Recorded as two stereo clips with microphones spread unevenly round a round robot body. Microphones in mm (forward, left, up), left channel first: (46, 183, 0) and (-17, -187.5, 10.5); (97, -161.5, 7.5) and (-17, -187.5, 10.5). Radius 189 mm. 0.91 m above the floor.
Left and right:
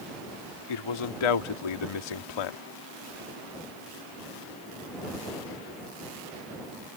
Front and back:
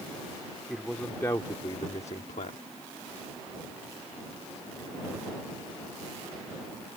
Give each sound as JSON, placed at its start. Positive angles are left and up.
{"t": 0.7, "sound": "a man speaking", "azimuth_deg": 105}